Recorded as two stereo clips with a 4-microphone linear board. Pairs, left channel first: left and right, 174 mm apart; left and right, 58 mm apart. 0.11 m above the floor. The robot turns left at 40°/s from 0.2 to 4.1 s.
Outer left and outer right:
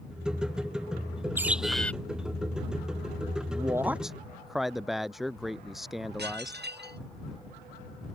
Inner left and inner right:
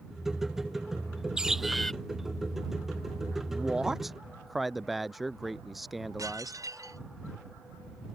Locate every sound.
1.4 s a bird: 15° right (ahead or behind); by 1.9 s 10° left (ahead or behind)
3.5 s a man speaking: 25° right (ahead or behind); by 6.7 s centre (ahead or behind)
6.2 s dishes clattering: 75° right (ahead or behind)